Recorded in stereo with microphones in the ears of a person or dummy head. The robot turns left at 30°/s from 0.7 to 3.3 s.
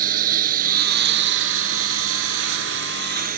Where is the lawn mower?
50° right; by 3.4 s 130° right.